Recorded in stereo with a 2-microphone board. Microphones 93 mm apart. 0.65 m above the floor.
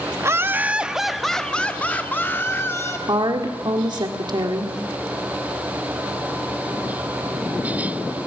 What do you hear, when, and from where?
0.2 s laughter: 30° right (ahead or behind), 0.7 m; by 3.0 s 30° left (ahead or behind), 1.4 m
3.1 s a woman speaking: 55° right (ahead or behind), 1.7 m